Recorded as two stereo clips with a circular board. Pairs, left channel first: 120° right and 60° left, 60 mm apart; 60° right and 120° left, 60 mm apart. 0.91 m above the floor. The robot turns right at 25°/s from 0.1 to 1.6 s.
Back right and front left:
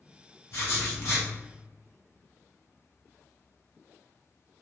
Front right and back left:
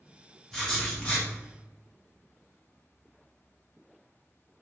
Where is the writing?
145° right, 1.0 m; by 1.3 s 125° right, 1.0 m.